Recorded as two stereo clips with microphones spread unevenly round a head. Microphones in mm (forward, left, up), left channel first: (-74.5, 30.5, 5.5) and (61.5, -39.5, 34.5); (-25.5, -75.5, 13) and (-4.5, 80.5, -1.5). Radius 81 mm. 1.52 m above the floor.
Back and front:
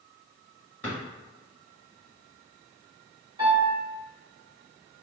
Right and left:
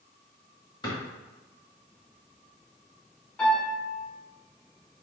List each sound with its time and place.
0.8 s a drawer: 125° right, 1.4 m
3.4 s a piano: 30° right, 1.6 m